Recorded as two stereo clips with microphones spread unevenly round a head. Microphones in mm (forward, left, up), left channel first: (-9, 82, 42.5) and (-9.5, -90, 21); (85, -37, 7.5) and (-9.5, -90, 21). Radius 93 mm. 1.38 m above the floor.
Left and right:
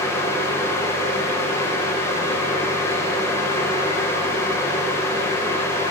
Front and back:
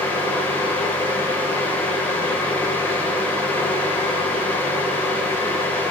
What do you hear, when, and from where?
0.0 s a fan: 20° left, 1.1 m